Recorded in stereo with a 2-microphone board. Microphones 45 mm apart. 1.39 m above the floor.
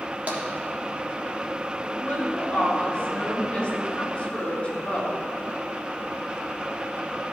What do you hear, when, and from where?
0.3 s tapping: 40° right (ahead or behind), 1.4 m
1.8 s a woman speaking: 25° left (ahead or behind), 3 m